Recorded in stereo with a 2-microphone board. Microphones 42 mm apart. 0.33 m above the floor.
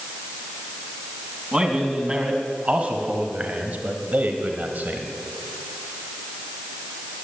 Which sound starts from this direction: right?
A man speaking, at 1.5 s.